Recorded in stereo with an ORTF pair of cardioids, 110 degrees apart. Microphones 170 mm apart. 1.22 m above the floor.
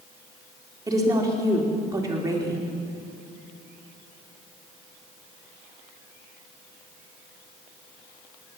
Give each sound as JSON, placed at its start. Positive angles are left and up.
{"t": 0.9, "sound": "a woman speaking", "azimuth_deg": -20, "distance_m": 3.5}